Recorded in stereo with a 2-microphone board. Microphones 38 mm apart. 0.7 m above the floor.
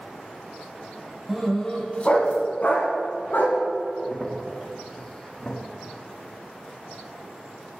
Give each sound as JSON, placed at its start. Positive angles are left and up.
{"t": 1.3, "sound": "a dog barking", "side_deg": 0, "distance_m": 1.1}
{"t": 4.0, "sound": "a crack", "side_deg": 20, "distance_m": 0.8}